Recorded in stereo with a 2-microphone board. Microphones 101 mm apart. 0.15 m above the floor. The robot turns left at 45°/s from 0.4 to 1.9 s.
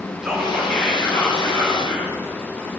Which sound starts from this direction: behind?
Whispering, at 0.2 s.